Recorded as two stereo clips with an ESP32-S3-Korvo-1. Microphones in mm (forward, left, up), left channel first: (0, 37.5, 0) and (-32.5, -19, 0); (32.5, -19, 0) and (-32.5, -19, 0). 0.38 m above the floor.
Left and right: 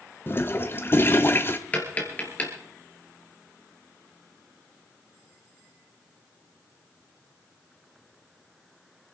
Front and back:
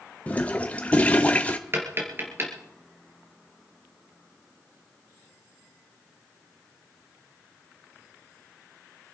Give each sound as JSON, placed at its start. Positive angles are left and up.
{"t": 0.3, "sound": "a toilet flushing", "azimuth_deg": 50, "distance_m": 1.0}
{"t": 1.7, "sound": "tapping", "azimuth_deg": 125, "distance_m": 3.0}